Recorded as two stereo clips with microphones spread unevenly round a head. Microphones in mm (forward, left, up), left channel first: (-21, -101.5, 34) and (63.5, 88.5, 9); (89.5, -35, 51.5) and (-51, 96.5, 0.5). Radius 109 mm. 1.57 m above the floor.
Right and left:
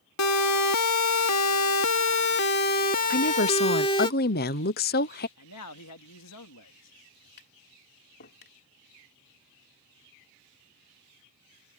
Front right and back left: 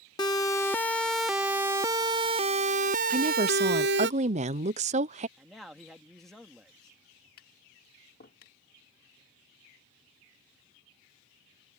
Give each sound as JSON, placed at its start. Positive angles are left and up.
{"t": 0.2, "sound": "a siren", "azimuth_deg": -115}
{"t": 3.1, "sound": "a woman speaking", "azimuth_deg": -165}
{"t": 5.4, "sound": "a man speaking", "azimuth_deg": -130}
{"t": 7.4, "sound": "tapping", "azimuth_deg": -80}